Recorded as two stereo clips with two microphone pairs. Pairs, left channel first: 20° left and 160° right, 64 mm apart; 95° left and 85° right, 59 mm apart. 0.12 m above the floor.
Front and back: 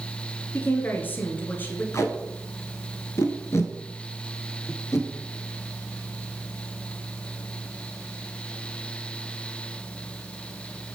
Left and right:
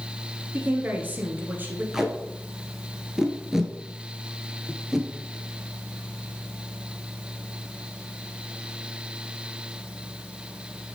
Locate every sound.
0.5 s a woman speaking: 35° right, 1.7 m
1.9 s tape being pulled: 5° right, 1.1 m